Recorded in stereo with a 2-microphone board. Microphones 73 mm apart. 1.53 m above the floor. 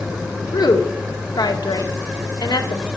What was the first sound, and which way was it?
A woman speaking, 70° left (ahead or behind).